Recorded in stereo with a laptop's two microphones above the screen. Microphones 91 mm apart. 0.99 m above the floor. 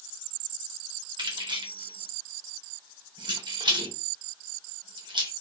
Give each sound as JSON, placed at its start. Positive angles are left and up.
{"t": 1.2, "sound": "keys jangling", "side_deg": -55, "distance_m": 0.7}